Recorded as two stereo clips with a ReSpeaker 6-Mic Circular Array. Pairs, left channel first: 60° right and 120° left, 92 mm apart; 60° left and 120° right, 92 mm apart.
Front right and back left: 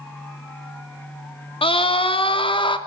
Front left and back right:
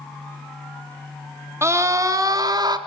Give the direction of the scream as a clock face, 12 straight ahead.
2 o'clock.